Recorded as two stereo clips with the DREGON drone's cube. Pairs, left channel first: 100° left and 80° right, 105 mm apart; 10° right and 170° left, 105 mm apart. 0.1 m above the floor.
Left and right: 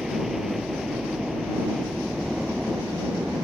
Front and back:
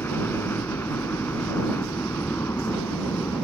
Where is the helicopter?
5° left.